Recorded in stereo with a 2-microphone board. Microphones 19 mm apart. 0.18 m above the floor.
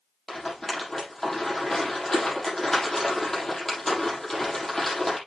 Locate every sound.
0.3 s a rattle: 15° left (ahead or behind), 5.5 m